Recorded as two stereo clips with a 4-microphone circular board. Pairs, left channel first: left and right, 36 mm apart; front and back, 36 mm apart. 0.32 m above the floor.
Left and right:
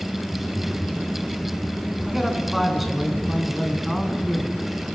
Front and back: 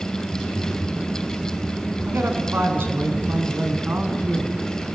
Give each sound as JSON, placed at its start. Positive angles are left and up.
{"t": 2.1, "sound": "a man speaking", "azimuth_deg": -175, "distance_m": 4.0}